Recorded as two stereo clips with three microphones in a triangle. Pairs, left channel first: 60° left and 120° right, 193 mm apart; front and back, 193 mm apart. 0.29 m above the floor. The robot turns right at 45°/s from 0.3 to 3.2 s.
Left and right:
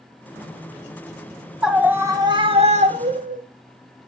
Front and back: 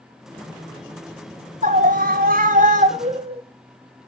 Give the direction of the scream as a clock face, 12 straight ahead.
7 o'clock.